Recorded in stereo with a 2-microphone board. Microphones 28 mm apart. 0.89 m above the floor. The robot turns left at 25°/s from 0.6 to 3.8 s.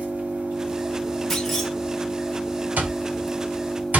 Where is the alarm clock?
75° right (ahead or behind), 1.0 m.